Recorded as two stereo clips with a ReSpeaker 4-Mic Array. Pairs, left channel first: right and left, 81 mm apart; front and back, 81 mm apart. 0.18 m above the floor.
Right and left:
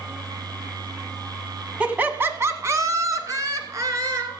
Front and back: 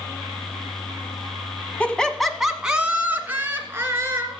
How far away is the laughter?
About 1.3 m.